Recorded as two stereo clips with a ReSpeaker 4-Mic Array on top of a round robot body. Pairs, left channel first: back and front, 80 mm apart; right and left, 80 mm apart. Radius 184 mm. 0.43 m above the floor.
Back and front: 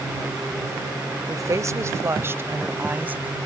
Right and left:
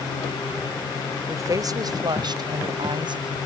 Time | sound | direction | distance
1.3 | a woman speaking | 45° left | ?